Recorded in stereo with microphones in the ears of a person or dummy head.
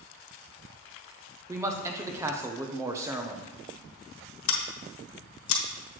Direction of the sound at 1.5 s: 15° right (ahead or behind).